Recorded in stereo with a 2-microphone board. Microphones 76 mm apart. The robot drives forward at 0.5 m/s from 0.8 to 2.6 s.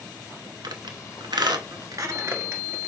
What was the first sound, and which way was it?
A squeak, 65° right (ahead or behind).